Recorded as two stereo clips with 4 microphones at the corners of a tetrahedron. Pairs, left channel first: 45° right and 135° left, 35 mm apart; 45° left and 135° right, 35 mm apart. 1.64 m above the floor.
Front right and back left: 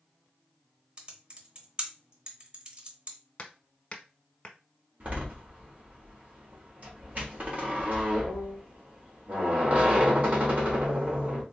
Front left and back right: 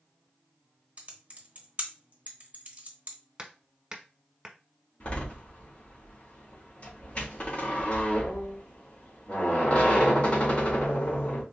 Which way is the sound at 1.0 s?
175° right.